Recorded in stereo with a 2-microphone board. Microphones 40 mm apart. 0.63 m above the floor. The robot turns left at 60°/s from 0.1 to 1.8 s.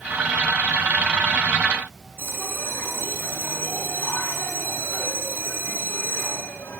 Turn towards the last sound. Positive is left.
turn(degrees=70)  # may be behind; listen again after turning